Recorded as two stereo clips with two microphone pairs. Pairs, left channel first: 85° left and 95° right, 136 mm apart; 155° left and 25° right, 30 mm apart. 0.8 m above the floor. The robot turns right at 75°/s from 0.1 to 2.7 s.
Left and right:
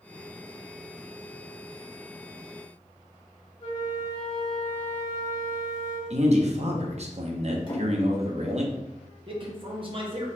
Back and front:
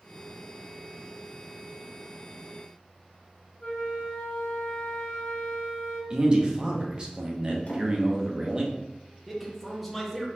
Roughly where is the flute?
Behind left.